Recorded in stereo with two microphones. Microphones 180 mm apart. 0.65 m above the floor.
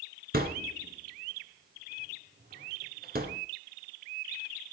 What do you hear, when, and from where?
0.3 s a thud: 60° right (ahead or behind), 2 m